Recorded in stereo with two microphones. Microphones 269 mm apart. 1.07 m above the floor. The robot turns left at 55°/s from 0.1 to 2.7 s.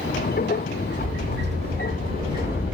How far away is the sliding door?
About 1.1 m.